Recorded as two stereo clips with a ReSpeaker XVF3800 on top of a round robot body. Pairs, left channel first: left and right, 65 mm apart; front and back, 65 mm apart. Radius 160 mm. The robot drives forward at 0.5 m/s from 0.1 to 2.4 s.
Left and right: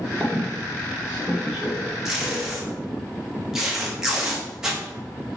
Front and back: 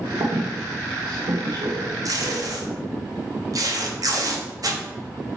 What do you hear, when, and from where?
0.2 s a squeak: 160° right, 1.1 m; by 2.8 s 170° right, 2 m
2.0 s tape being pulled: 170° right, 1.4 m